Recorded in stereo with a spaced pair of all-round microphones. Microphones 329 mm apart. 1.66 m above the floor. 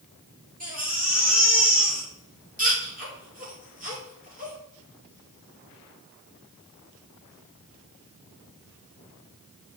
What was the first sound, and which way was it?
A baby crying, 25° right (ahead or behind).